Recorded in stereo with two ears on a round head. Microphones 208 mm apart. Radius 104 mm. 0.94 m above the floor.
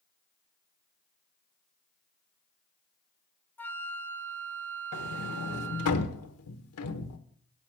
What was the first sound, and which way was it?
A flute, 10° left (ahead or behind).